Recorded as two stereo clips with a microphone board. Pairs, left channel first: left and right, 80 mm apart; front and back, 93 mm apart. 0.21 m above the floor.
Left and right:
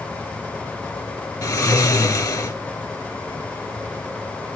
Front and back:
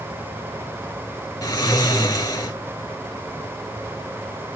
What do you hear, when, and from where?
1.4 s snoring: 45° left, 0.9 m